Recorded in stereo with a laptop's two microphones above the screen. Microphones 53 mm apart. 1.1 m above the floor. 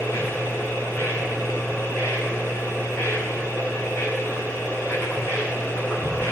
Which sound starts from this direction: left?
A machine running, at 0.0 s.